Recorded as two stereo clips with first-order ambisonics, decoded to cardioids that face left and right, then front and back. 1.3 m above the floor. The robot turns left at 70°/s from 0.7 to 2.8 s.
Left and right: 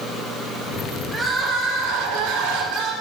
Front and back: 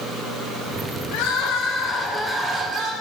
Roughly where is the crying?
Ahead.